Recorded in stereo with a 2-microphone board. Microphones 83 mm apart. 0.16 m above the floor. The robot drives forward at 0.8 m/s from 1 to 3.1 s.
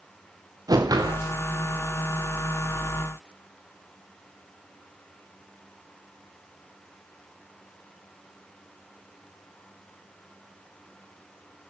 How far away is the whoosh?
About 3.5 m.